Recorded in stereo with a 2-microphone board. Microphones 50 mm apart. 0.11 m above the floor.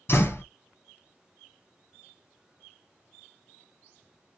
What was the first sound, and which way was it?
A door slam, 50° left (ahead or behind).